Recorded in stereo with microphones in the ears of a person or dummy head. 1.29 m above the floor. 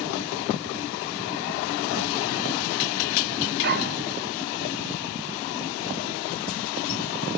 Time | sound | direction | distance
3.6 | a dog barking | 55° right (ahead or behind) | 2 m